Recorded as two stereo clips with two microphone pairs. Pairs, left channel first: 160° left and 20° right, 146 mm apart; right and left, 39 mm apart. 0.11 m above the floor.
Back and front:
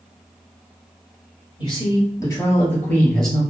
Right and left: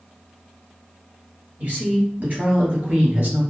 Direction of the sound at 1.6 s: 115° left.